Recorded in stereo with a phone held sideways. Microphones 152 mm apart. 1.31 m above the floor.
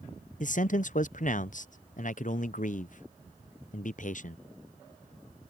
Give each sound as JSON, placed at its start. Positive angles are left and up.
{"t": 0.4, "sound": "a man speaking", "side_deg": 60}